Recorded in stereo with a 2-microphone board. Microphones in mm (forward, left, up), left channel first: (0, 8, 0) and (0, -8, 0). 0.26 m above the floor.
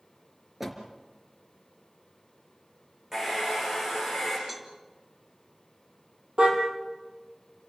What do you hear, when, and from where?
0.6 s a door slam: 15° right (ahead or behind), 3.5 m
3.1 s a hair dryer: 25° right (ahead or behind), 9.5 m
4.5 s a cowbell: 10° right (ahead or behind), 2.5 m
6.4 s a car horn: 85° right, 4 m